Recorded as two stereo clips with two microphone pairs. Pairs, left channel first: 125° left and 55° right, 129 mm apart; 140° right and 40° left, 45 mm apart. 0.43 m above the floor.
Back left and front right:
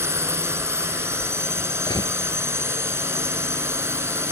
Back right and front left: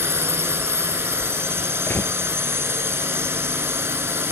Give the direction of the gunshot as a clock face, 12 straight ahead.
6 o'clock.